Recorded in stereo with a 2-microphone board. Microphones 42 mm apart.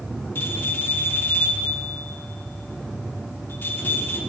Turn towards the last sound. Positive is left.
turn(degrees=55)  # may be behind; listen again after turning